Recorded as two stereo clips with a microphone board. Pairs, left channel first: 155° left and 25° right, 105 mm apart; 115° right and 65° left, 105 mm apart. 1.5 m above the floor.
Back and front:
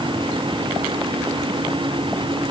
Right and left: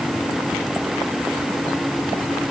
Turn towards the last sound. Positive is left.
No sound to turn to.